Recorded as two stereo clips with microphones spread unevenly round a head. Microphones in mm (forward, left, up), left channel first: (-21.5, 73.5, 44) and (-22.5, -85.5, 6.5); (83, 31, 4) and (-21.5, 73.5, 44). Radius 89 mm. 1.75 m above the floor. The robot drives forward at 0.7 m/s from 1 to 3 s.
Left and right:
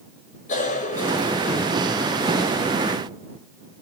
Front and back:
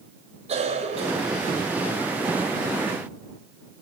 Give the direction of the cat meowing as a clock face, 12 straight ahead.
No cat meowing in this recording.